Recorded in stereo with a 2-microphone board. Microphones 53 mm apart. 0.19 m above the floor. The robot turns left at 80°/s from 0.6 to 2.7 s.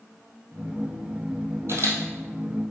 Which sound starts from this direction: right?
A camera shutter, at 1.7 s.